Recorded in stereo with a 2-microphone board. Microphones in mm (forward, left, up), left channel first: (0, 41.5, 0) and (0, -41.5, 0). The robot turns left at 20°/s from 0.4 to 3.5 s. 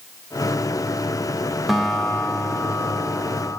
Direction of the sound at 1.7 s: Straight behind.